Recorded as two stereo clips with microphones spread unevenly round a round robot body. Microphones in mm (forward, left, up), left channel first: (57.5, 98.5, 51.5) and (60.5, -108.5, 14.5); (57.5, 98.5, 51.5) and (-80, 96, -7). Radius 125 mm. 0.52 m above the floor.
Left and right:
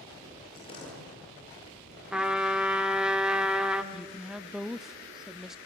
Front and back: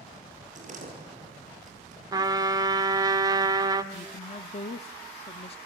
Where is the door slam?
160° left, 9 m.